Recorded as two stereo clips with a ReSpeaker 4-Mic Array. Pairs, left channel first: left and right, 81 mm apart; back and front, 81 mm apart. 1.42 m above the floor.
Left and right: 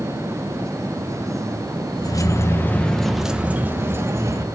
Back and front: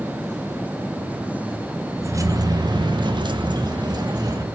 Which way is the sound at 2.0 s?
50° left.